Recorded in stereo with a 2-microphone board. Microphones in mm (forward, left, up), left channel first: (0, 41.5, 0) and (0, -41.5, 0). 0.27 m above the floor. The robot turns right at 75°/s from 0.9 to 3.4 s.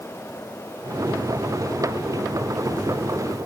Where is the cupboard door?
I don't hear a cupboard door.